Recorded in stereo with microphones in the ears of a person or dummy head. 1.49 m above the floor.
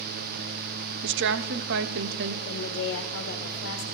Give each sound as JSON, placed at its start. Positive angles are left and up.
{"t": 1.0, "sound": "a woman speaking", "side_deg": -60, "distance_m": 0.6}
{"t": 2.5, "sound": "a woman speaking", "side_deg": 60, "distance_m": 1.3}